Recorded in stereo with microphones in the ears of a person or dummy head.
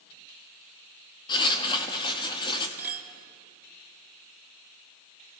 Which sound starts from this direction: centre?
A clink, at 2.8 s.